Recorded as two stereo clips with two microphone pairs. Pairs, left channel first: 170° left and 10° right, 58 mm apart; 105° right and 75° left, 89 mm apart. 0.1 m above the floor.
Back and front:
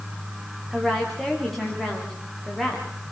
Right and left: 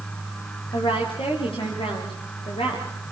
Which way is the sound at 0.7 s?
105° right.